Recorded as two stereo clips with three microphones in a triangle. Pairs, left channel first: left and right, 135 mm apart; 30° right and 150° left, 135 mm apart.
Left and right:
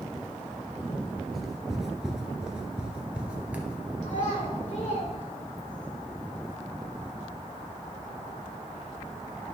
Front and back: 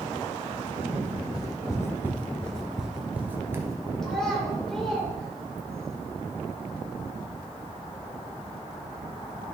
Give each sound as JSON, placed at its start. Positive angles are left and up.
{"t": 1.3, "sound": "footsteps", "azimuth_deg": 0, "distance_m": 1.3}
{"t": 4.0, "sound": "a child speaking", "azimuth_deg": 55, "distance_m": 2.5}